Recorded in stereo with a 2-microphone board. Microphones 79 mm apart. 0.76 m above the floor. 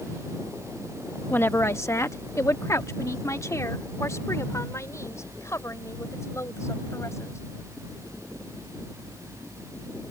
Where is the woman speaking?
25° left (ahead or behind); by 7.4 s 35° left (ahead or behind).